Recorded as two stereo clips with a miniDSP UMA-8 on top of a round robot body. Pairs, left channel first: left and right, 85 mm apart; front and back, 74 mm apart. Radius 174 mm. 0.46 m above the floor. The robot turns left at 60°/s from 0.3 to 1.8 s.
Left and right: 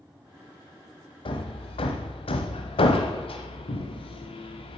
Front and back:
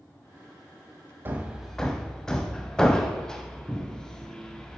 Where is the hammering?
115° left, 0.8 m; by 4.8 s 80° left, 0.8 m.